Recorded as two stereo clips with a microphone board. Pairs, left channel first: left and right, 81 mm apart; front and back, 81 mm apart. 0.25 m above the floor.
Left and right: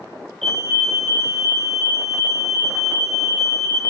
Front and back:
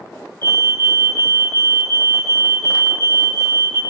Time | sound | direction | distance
0.4 | a fire alarm | 175° left | 5 m